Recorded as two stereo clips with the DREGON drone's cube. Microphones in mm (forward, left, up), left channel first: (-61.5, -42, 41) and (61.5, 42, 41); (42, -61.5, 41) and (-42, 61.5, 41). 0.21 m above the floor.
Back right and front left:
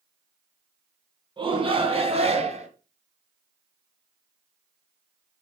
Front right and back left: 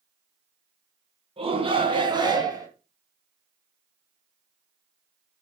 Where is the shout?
85° left, 2.5 m; by 2.7 s 65° left, 2.5 m.